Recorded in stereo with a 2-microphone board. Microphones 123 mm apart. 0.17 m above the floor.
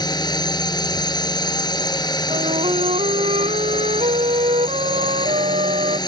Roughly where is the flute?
Right.